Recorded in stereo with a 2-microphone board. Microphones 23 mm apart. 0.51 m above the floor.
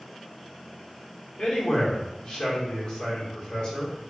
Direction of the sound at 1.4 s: 45° left (ahead or behind).